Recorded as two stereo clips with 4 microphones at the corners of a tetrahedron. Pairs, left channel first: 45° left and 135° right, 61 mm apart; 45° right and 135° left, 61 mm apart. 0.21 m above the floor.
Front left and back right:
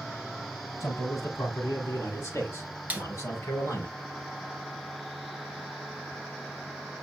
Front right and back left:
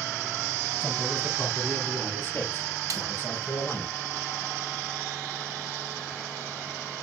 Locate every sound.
0.8 s a man speaking: 20° left, 7 m; by 3.9 s 10° left, 5 m
2.9 s a snare drum: 160° left, 1.0 m